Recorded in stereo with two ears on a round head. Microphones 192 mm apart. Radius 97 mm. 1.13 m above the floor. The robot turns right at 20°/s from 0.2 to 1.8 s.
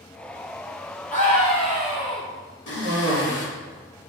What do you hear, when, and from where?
1.1 s a scream: 40° left (ahead or behind), 1.6 m; by 2.2 s 25° left (ahead or behind), 1.6 m
2.7 s a cough: 60° left (ahead or behind), 3 m